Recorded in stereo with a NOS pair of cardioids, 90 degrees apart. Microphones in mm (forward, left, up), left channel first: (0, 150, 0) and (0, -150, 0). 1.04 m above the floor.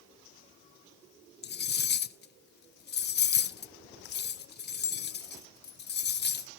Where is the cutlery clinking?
35° left, 0.6 m.